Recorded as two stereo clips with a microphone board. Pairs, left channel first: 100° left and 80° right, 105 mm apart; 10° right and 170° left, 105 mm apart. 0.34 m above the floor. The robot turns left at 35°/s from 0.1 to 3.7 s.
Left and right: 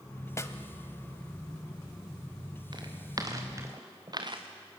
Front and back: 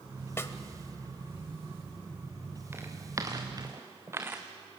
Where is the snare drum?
50° left, 1.1 m; by 0.6 s 45° left, 1.1 m.